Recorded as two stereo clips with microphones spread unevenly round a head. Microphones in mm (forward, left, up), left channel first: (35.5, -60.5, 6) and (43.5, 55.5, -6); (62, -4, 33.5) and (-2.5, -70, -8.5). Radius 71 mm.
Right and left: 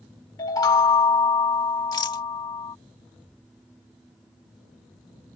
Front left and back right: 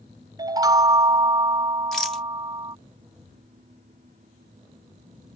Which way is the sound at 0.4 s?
70° right.